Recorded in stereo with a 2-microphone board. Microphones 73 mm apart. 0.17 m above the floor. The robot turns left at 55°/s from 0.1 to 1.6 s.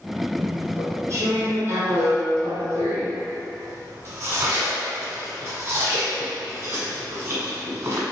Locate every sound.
0.4 s chewing: 20° right (ahead or behind), 1.2 m; by 8.0 s 35° right (ahead or behind), 1.2 m